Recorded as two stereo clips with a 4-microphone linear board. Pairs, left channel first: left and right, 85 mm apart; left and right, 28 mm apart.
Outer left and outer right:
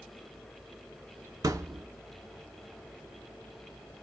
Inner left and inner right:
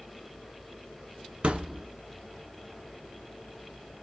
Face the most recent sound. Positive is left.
turn(degrees=-40)  # may be behind; listen again after turning